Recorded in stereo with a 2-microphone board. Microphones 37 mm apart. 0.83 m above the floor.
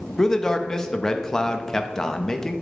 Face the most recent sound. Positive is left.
turn(degrees=15)  # may be behind; listen again after turning